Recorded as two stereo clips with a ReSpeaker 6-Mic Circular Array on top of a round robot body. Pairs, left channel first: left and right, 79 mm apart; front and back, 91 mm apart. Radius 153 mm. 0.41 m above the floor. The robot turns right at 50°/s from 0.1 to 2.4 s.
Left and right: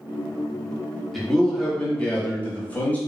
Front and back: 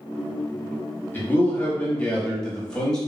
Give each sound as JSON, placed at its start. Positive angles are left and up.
{"t": 1.1, "sound": "a man speaking", "azimuth_deg": 5, "distance_m": 1.4}